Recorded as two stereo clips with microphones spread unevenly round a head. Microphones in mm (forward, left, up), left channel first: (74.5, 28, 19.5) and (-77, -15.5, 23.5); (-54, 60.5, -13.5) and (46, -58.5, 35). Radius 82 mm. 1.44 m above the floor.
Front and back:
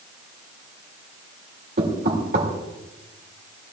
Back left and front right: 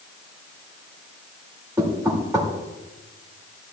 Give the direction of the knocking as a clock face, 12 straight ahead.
4 o'clock.